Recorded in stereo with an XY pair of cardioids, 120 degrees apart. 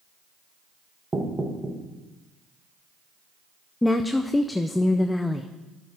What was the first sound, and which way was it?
Knocking, 20° right.